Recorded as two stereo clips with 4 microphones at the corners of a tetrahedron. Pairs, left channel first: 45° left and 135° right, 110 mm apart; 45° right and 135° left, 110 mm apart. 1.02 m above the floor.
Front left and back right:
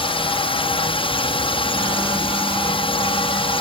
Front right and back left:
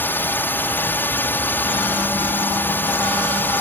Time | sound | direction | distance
0.0 | a drone | 25° left | ?